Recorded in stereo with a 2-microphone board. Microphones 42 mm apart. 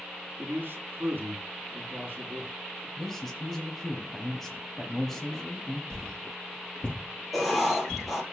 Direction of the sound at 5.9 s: 25° left (ahead or behind).